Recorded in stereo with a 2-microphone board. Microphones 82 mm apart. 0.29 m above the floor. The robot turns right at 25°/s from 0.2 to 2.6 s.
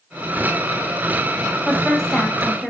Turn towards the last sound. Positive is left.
turn(degrees=15)  # may be behind; listen again after turning